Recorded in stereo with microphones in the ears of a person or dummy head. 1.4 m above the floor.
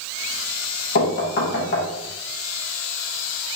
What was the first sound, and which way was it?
Knocking, 55° left (ahead or behind).